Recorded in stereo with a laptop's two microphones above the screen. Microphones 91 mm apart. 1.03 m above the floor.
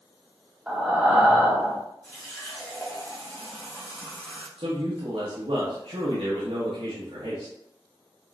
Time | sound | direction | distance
0.7 | breathing | 10° right (ahead or behind) | 1.0 m
2.0 | a running tap | 20° left (ahead or behind) | 1.6 m
4.6 | a man speaking | 75° right (ahead or behind) | 1.3 m